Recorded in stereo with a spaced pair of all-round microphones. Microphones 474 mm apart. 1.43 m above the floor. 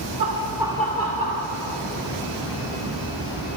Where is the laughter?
40° right (ahead or behind), 1.0 m; by 1.5 s 25° left (ahead or behind), 1.6 m.